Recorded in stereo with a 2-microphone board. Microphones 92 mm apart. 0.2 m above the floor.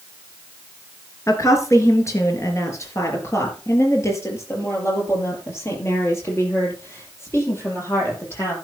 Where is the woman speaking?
35° left (ahead or behind), 3.5 m; by 8.5 s 30° left (ahead or behind), 7 m.